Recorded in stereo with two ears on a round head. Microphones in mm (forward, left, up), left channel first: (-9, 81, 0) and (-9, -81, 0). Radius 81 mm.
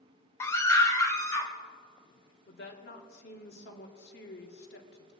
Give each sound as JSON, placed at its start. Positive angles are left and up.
{"t": 0.4, "sound": "a scream", "side_deg": 15, "distance_m": 0.6}
{"t": 2.5, "sound": "a woman speaking", "side_deg": 70, "distance_m": 2.0}